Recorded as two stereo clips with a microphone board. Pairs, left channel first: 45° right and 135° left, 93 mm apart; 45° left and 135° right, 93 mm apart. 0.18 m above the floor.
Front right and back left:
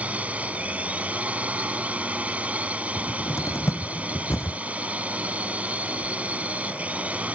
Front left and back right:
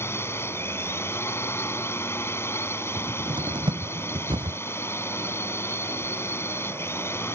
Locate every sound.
0.0 s a drone: 75° left
3.0 s a cupboard door: 105° right